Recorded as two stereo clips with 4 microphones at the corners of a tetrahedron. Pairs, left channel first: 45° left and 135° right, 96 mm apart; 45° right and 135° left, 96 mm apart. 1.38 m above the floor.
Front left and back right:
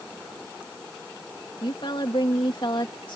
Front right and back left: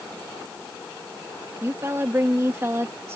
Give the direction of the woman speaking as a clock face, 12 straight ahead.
10 o'clock.